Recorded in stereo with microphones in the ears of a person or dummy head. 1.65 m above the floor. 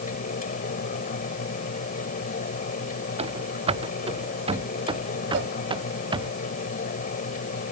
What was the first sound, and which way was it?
A fan, 45° left (ahead or behind).